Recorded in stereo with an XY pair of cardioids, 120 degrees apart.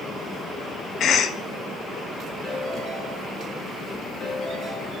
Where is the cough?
55° left, 1.4 m.